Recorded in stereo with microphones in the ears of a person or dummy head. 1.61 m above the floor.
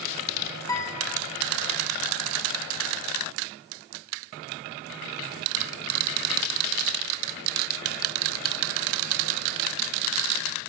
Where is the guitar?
20° left (ahead or behind), 2 m.